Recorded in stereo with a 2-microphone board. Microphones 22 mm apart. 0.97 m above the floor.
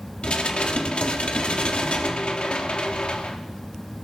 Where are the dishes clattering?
50° left (ahead or behind), 1.2 m.